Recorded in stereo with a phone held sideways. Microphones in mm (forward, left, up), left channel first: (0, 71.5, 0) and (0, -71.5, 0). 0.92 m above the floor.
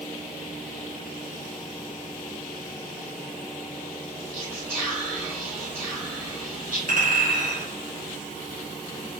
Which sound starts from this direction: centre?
Whispering, at 4.3 s.